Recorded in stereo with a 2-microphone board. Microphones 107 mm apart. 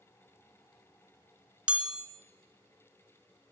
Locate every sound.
1.7 s a chime: 10° right (ahead or behind), 2 m